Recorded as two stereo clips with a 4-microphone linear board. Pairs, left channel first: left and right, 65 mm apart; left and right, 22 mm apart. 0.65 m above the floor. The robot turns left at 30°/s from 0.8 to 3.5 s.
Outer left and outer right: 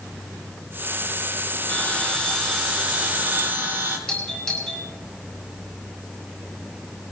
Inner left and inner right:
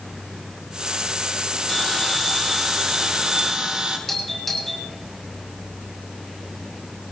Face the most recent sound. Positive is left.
turn(degrees=15)  # may be behind; listen again after turning